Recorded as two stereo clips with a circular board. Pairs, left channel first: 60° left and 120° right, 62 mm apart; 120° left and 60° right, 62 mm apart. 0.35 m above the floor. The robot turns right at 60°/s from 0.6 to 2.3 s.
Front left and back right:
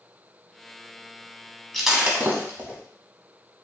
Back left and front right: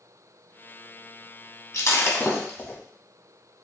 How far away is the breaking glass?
About 1.1 m.